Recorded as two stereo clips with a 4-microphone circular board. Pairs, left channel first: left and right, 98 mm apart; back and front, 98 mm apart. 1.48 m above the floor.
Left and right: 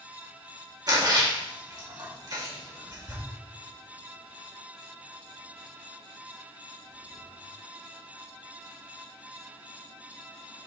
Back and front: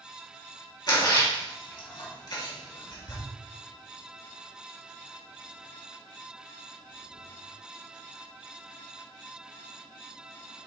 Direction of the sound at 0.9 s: 135° right.